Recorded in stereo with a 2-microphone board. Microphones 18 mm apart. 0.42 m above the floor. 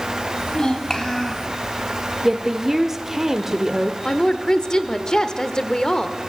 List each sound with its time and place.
0.4 s a child speaking: 45° left (ahead or behind), 2.5 m; by 1.5 s 15° left (ahead or behind), 2.5 m
2.2 s a woman speaking: 25° right (ahead or behind), 0.8 m
4.0 s a woman speaking: 35° left (ahead or behind), 0.9 m